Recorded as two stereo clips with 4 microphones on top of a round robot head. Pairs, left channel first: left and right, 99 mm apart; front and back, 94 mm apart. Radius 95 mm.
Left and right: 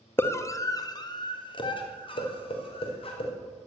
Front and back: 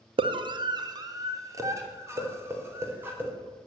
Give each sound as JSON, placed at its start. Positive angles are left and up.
{"t": 0.2, "sound": "a scream", "azimuth_deg": 155, "distance_m": 1.9}